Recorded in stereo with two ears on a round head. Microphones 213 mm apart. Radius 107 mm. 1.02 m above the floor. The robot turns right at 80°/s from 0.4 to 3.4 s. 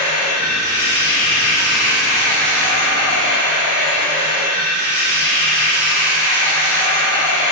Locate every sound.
0.0 s running water: 70° left, 1.2 m; by 7.5 s 50° right, 1.2 m